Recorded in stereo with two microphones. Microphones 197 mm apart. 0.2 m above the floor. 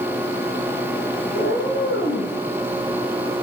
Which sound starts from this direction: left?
A cat meowing, at 1.3 s.